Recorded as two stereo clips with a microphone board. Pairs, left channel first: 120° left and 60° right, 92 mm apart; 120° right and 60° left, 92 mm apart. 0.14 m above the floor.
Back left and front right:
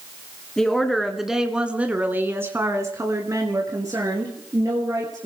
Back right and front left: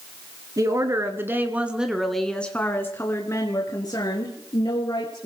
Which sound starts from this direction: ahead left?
A woman speaking, at 0.6 s.